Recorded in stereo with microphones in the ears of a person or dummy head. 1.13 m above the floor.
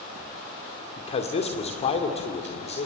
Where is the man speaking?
25° left (ahead or behind), 2.5 m.